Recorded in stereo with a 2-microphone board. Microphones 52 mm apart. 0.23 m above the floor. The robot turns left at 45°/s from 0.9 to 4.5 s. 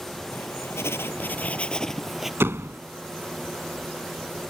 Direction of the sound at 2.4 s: 50° right (ahead or behind).